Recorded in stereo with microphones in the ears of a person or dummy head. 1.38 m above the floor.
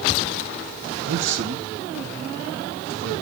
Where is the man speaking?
80° right, 1.1 m; by 3.2 s 65° right (ahead or behind), 2 m.